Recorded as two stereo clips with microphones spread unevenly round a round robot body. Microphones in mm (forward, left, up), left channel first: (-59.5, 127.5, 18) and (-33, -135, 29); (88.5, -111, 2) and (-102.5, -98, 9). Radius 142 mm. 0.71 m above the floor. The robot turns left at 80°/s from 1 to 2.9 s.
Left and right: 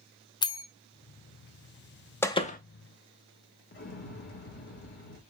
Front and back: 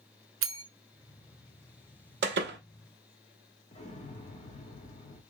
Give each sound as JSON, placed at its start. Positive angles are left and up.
{"t": 0.4, "sound": "a bell", "azimuth_deg": 170, "distance_m": 0.8}
{"t": 2.2, "sound": "a door slam", "azimuth_deg": 175, "distance_m": 0.8}
{"t": 3.7, "sound": "an explosion", "azimuth_deg": 50, "distance_m": 1.1}